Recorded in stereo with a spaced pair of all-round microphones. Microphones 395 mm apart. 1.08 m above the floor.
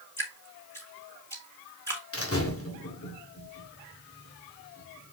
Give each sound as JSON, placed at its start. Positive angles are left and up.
{"t": 0.2, "sound": "dripping", "side_deg": 5, "distance_m": 2.5}
{"t": 2.1, "sound": "a door slam", "side_deg": 35, "distance_m": 1.9}